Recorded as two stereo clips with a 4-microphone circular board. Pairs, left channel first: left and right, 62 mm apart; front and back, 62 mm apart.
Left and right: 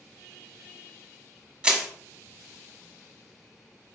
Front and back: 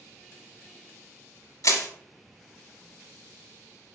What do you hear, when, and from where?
1.6 s crushing: 15° right, 0.9 m